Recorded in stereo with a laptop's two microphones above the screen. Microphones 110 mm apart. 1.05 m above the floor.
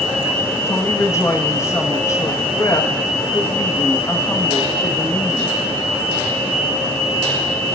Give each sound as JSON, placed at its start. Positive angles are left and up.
{"t": 0.7, "sound": "a woman speaking", "side_deg": 25, "distance_m": 1.1}